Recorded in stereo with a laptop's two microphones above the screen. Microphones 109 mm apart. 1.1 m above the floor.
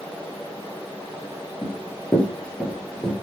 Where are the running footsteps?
20° left (ahead or behind), 1.1 m; by 3.1 s 5° left (ahead or behind), 1.5 m.